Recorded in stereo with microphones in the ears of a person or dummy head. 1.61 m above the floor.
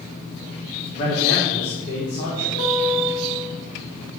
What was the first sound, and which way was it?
A man speaking, 40° left (ahead or behind).